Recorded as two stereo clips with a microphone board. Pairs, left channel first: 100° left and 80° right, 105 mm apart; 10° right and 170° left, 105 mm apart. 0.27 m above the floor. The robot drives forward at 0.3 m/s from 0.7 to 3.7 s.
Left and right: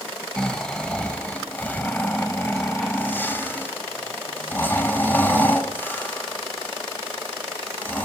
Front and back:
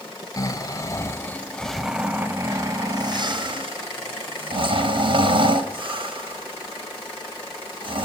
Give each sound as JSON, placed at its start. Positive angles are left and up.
{"t": 0.4, "sound": "snoring", "azimuth_deg": 25, "distance_m": 0.6}